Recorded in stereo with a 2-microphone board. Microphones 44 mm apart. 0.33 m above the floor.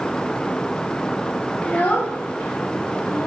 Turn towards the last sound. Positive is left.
turn(degrees=70)  # may be behind; listen again after turning